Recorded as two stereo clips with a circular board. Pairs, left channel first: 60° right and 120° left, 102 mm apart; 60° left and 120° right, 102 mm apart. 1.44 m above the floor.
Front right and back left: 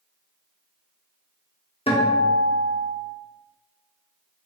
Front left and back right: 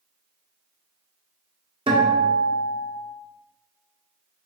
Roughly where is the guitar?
Right.